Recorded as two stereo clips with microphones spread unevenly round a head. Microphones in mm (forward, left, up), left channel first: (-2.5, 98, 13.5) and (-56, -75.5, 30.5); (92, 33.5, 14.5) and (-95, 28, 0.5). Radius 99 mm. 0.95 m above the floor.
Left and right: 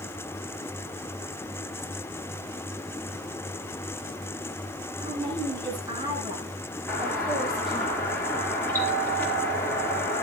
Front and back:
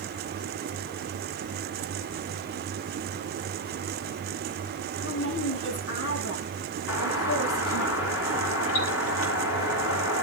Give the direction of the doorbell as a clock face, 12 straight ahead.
12 o'clock.